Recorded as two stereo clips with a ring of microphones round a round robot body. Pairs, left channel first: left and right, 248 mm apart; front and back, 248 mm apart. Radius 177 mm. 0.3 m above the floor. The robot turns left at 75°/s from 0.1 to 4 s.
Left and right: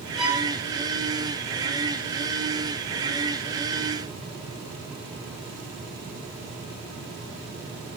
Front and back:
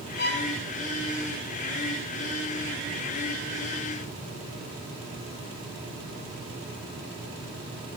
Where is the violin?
Straight ahead, 1.5 m; by 0.5 s 25° right, 1.5 m.